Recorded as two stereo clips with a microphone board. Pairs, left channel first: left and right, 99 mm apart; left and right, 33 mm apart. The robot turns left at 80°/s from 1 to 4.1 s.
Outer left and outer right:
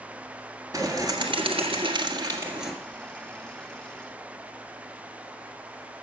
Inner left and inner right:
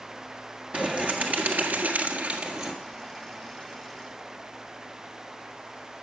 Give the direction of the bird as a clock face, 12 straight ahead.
1 o'clock.